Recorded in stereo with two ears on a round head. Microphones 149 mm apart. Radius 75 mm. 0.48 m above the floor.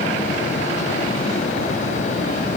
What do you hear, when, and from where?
Only background noise.